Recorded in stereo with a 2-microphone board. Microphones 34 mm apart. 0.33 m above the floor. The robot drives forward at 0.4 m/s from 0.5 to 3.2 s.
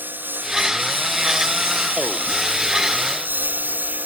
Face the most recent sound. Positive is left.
turn(degrees=-70)  # may be behind; listen again after turning